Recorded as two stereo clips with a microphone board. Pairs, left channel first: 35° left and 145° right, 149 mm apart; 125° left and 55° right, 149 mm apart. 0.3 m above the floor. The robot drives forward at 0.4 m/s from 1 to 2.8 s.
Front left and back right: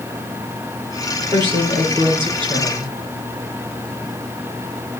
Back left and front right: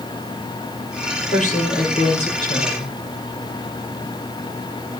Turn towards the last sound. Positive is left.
turn(degrees=160)